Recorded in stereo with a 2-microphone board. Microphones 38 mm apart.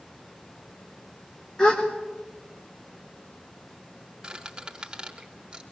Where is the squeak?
20° right (ahead or behind), 4.5 m.